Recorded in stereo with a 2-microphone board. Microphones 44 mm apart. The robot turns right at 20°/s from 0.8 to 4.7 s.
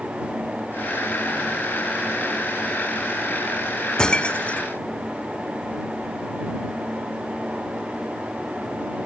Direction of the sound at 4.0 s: 20° left (ahead or behind).